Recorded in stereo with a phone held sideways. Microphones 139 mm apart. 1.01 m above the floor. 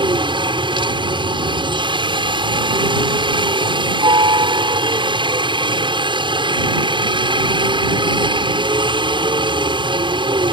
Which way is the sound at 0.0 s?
35° right (ahead or behind).